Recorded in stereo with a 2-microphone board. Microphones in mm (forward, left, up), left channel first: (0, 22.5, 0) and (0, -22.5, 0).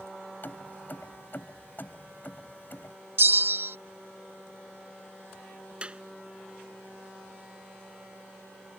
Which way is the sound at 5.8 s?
25° right (ahead or behind).